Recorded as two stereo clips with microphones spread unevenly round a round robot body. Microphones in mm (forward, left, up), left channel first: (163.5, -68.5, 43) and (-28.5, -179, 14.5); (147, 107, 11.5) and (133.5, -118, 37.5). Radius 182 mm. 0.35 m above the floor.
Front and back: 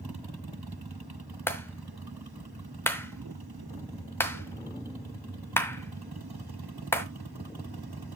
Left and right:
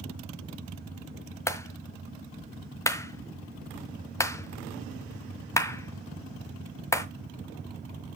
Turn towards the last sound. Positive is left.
turn(degrees=115)